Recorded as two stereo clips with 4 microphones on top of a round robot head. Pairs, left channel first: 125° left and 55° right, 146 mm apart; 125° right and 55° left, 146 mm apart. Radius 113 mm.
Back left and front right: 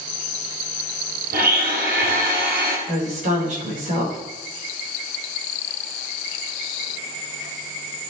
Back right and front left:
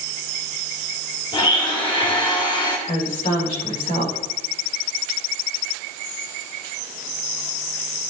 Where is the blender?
70° right, 3 m.